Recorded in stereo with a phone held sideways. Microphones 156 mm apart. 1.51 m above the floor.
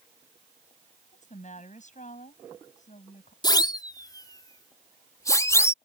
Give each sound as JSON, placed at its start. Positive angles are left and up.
{"t": 1.1, "sound": "a woman speaking", "side_deg": 50}
{"t": 3.4, "sound": "a siren", "side_deg": 25}